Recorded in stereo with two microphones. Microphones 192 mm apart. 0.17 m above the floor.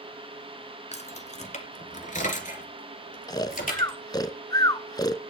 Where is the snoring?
20° left (ahead or behind), 0.5 m.